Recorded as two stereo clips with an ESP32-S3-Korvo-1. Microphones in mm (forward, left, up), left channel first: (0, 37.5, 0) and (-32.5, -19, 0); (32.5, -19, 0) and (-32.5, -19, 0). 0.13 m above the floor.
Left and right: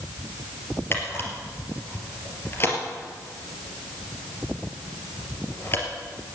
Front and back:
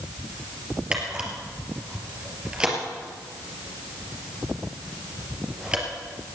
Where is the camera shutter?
105° left, 3 m.